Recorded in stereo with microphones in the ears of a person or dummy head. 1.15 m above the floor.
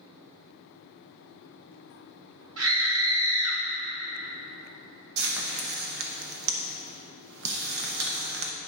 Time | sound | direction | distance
2.6 | a scream | 75° right (ahead or behind) | 2.5 m
5.2 | frying | 75° right (ahead or behind) | 0.8 m